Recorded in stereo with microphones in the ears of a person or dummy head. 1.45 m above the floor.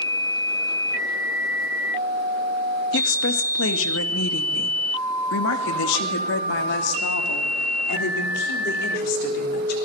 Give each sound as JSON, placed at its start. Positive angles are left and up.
{"t": 2.9, "sound": "a woman speaking", "side_deg": 70, "distance_m": 2.0}